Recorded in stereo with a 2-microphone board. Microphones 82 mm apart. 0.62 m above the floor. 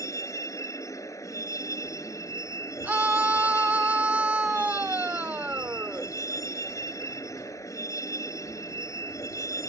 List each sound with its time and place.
0.0 s a vehicle: 40° left (ahead or behind)
2.8 s a scream: 20° right (ahead or behind)